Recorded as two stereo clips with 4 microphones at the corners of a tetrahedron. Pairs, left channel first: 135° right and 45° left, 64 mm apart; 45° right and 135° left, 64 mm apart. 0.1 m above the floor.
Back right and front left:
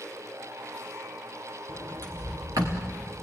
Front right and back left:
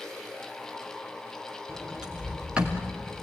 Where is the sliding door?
60° left, 3.5 m.